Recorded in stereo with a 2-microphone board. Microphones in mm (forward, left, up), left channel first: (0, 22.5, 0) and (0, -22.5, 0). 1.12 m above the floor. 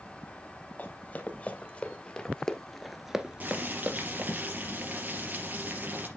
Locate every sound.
0.8 s running footsteps: 40° left (ahead or behind), 2.5 m; by 4.3 s 45° right (ahead or behind), 1.5 m
3.4 s boiling: 40° right (ahead or behind), 3.5 m